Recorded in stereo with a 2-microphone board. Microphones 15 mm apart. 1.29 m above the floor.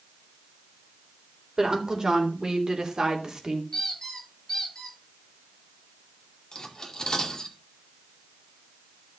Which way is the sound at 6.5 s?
35° left (ahead or behind).